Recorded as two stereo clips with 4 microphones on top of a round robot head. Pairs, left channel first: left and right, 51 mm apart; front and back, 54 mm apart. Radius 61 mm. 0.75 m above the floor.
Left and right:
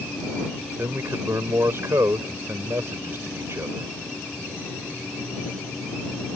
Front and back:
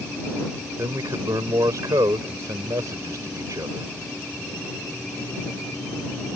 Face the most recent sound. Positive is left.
turn(degrees=-140)